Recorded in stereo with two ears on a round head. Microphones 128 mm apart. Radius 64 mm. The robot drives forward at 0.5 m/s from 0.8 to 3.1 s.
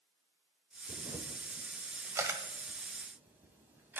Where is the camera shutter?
30° right (ahead or behind), 0.7 m; by 4.0 s 15° right (ahead or behind), 1.5 m.